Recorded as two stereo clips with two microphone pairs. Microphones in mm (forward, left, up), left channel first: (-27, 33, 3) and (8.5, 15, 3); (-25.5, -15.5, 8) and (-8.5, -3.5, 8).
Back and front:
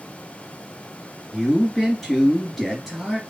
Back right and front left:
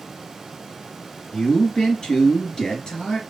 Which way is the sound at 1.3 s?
125° right.